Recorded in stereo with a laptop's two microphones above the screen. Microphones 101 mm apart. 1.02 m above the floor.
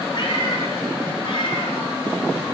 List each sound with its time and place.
0.1 s a cat meowing: 50° left (ahead or behind), 4.5 m; by 2.5 s 55° left (ahead or behind), 7.5 m